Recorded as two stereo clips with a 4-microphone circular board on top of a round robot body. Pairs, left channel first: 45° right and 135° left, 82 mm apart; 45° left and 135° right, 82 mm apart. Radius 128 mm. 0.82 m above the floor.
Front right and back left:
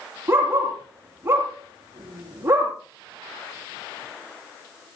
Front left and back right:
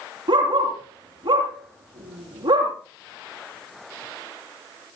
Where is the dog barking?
160° right, 7.5 m.